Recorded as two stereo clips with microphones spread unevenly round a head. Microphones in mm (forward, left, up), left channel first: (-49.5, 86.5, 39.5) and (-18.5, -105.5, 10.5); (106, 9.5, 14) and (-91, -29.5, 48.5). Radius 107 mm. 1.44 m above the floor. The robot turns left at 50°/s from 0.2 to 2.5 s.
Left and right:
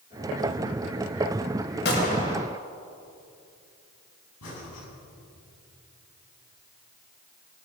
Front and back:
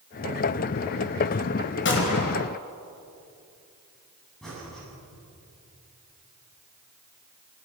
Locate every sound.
1.9 s a gunshot: 55° left, 4 m; by 2.5 s 20° left, 4 m
4.4 s breathing: 100° left, 8 m